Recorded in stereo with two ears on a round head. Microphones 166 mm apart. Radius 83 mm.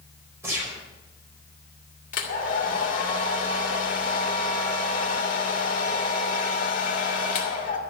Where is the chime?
No chime in this recording.